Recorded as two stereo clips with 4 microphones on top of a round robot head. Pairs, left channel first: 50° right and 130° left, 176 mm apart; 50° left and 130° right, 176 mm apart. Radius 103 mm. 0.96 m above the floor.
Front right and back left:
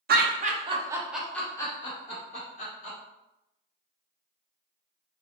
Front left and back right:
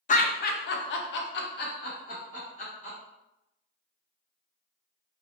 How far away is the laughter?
About 0.7 m.